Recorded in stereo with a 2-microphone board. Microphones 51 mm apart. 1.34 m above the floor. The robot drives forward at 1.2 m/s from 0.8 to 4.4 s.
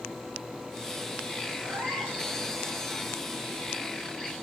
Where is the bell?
No bell in this recording.